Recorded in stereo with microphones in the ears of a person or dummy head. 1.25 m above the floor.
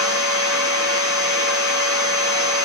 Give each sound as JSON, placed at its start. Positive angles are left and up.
{"t": 0.0, "sound": "a machine running", "side_deg": 65, "distance_m": 1.4}